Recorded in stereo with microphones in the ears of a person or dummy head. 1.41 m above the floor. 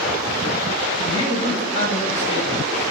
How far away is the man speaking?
About 0.9 m.